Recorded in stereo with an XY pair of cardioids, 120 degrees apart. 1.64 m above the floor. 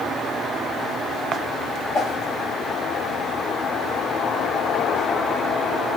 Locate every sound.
1.9 s a whoosh: 55° left, 2.5 m